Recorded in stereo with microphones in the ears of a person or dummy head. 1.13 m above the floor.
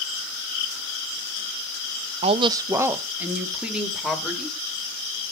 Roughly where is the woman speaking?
Right.